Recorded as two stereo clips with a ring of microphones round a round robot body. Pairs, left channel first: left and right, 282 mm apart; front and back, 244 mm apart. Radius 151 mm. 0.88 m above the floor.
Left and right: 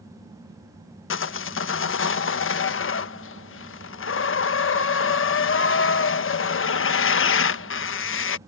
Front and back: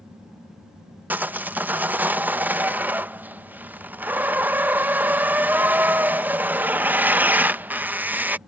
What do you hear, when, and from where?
1.1 s sawing: 100° left